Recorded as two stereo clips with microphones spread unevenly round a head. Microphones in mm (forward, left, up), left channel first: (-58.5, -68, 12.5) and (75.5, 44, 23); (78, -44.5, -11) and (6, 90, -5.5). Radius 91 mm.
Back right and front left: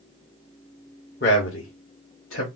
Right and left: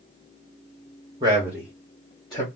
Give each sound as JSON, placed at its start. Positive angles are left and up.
{"t": 1.2, "sound": "a man speaking", "azimuth_deg": -175, "distance_m": 1.2}